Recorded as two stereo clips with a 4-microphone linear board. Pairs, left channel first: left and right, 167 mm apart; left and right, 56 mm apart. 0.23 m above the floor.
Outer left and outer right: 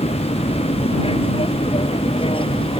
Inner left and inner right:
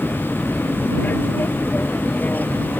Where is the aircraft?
35° left (ahead or behind); by 2.8 s 30° left (ahead or behind).